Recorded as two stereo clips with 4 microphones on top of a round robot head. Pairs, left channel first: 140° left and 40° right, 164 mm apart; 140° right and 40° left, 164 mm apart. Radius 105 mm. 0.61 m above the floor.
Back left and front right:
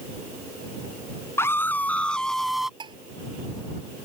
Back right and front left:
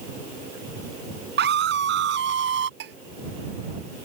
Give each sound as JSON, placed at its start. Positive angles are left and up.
{"t": 1.4, "sound": "a scream", "azimuth_deg": 60}
{"t": 2.8, "sound": "dishes clattering", "azimuth_deg": 20}